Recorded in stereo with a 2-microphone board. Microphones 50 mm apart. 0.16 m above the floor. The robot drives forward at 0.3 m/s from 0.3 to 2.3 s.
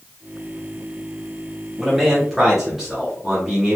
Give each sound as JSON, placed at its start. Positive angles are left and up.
{"t": 1.8, "sound": "a man speaking", "side_deg": -5, "distance_m": 1.2}